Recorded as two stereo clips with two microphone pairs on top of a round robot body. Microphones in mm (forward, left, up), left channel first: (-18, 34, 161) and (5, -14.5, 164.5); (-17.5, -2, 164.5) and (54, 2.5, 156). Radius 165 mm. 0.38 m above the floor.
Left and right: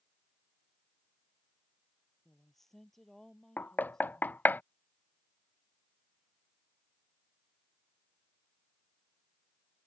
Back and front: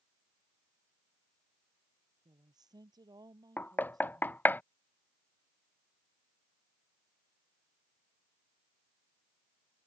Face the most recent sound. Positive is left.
turn(degrees=125)